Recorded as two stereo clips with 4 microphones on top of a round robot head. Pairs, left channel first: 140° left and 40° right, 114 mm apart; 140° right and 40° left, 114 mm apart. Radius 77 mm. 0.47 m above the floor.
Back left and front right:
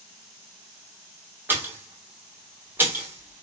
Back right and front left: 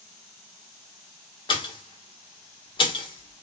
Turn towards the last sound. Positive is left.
turn(degrees=-110)